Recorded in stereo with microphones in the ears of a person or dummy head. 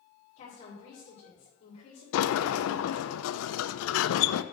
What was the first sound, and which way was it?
A woman speaking, 45° left (ahead or behind).